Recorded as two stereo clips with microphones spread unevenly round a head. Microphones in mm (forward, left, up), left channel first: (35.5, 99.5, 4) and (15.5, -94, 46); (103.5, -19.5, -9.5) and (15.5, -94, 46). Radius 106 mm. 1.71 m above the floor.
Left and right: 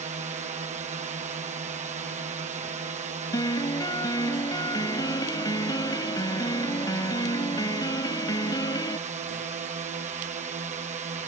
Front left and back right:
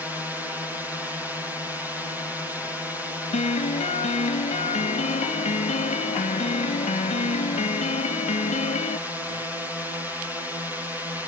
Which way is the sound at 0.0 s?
45° right.